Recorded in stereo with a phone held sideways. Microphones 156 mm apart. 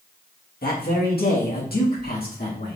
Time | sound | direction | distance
0.6 | a man speaking | 80° left | 1.4 m